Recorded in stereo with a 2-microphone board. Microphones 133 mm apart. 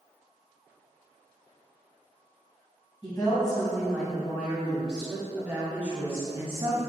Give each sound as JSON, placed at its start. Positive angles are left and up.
{"t": 3.0, "sound": "a woman speaking", "side_deg": 30, "distance_m": 2.0}